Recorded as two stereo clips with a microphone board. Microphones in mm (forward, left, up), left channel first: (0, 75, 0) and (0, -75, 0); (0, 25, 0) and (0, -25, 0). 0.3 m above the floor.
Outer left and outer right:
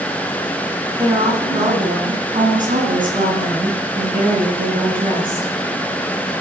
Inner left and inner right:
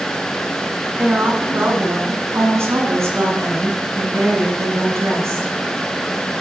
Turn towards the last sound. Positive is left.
turn(degrees=-70)  # may be behind; listen again after turning